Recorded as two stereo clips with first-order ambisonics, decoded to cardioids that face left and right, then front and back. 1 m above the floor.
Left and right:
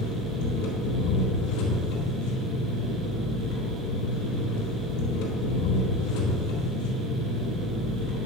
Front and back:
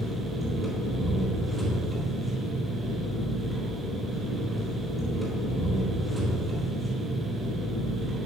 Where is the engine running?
90° left, 3.5 m.